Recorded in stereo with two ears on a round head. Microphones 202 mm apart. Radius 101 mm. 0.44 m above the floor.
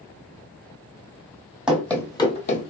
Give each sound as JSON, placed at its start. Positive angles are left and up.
{"t": 1.7, "sound": "running footsteps", "side_deg": -5, "distance_m": 0.7}